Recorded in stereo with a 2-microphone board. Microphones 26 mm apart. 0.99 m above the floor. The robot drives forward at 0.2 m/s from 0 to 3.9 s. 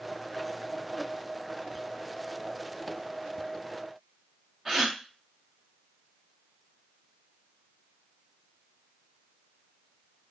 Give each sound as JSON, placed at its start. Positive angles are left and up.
{"t": 4.7, "sound": "a gasp", "side_deg": -10, "distance_m": 0.6}